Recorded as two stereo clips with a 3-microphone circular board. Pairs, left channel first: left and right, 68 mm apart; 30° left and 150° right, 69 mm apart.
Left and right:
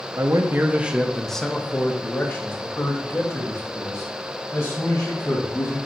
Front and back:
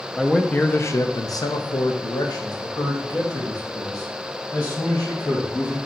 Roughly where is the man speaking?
Ahead right.